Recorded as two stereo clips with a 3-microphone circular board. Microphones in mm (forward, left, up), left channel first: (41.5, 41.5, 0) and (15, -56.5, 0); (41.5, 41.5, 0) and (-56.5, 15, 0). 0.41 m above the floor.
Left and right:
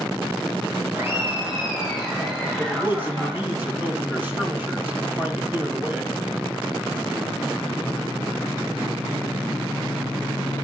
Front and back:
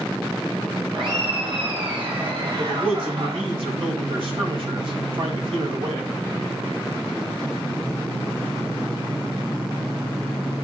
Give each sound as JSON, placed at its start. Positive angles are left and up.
{"t": 0.9, "sound": "laughter", "azimuth_deg": -160, "distance_m": 1.8}
{"t": 2.6, "sound": "a man speaking", "azimuth_deg": -175, "distance_m": 2.5}